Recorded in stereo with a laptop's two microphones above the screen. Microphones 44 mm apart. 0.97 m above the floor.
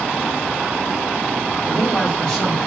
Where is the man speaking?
15° left (ahead or behind), 1.7 m.